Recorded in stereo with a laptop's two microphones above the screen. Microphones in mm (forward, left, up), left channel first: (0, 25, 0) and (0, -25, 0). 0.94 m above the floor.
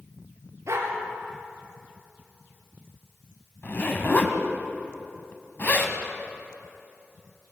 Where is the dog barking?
70° right (ahead or behind), 4.5 m.